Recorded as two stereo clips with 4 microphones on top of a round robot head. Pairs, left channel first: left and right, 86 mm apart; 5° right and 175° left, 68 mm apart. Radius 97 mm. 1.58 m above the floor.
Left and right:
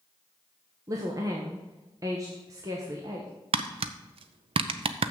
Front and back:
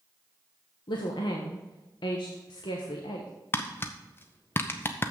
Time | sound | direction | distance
0.9 | a woman speaking | 30° right | 0.9 m
3.5 | tapping | 70° right | 0.5 m